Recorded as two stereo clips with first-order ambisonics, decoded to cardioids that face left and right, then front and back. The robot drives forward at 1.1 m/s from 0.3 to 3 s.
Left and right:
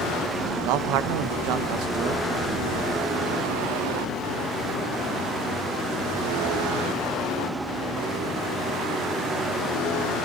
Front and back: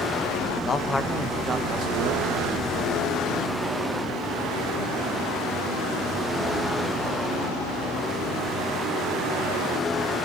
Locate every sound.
0.6 s a man speaking: 60° right, 1.2 m; by 3.1 s 155° right, 2.5 m